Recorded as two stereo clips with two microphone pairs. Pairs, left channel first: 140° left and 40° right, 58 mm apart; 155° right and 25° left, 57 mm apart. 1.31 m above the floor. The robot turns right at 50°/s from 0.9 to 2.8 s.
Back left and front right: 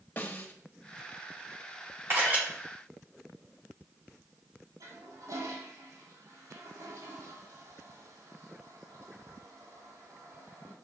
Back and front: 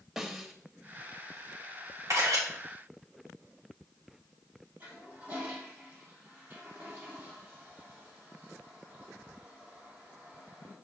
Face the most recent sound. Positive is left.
turn(degrees=-30)